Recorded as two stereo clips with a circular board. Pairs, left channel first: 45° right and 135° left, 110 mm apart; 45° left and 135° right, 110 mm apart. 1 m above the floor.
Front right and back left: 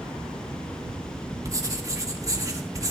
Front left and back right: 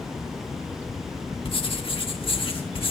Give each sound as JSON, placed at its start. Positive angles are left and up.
{"t": 1.4, "sound": "writing", "azimuth_deg": 75, "distance_m": 1.9}